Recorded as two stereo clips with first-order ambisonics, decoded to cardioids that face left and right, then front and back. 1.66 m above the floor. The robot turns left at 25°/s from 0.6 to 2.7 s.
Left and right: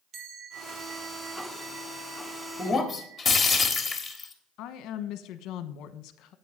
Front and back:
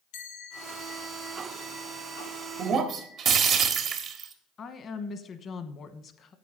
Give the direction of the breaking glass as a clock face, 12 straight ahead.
6 o'clock.